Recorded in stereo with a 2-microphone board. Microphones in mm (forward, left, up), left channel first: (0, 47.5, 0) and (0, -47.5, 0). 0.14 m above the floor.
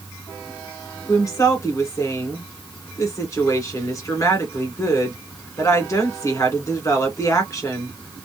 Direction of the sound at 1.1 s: 35° left (ahead or behind).